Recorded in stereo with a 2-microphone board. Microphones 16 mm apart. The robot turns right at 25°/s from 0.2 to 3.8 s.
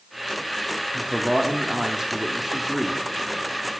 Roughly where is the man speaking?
Right.